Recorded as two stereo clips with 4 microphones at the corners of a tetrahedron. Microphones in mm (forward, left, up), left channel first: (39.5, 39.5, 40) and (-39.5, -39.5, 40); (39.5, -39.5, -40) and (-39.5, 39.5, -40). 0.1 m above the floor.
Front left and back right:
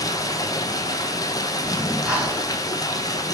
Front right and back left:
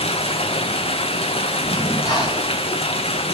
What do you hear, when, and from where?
0.0 s running water: 15° right, 0.7 m
1.6 s breathing: 55° right, 2 m